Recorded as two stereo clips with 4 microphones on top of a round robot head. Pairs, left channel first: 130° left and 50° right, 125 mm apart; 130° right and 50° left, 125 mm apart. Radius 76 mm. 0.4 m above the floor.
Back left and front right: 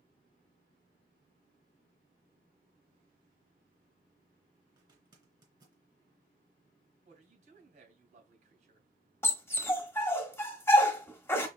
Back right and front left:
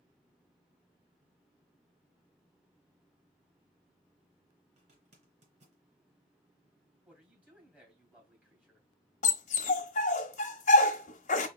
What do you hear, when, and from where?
4.8 s a zipper: 10° left, 3 m
7.0 s a man speaking: 30° right, 3 m
9.2 s a dog barking: 155° right, 1.0 m